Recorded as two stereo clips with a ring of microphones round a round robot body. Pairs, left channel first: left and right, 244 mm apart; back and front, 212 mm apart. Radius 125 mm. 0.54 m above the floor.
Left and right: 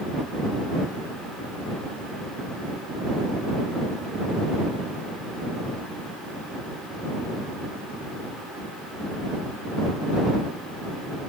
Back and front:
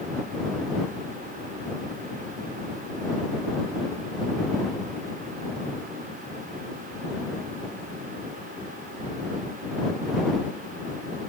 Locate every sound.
Only background noise.